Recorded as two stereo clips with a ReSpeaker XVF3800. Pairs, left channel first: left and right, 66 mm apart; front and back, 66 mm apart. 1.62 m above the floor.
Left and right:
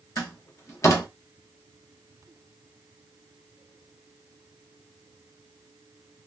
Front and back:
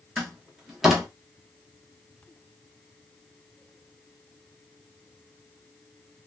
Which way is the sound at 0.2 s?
95° left.